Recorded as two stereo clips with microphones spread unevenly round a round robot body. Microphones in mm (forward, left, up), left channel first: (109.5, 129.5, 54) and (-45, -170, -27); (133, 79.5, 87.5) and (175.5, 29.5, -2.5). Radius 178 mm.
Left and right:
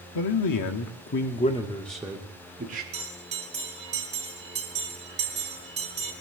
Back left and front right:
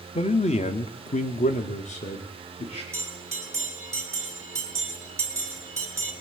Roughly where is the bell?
Ahead right.